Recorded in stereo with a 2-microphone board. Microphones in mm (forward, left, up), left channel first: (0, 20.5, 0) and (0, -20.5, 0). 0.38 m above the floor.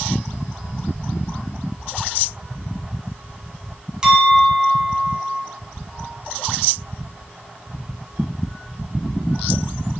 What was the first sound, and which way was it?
A clink, 15° right (ahead or behind).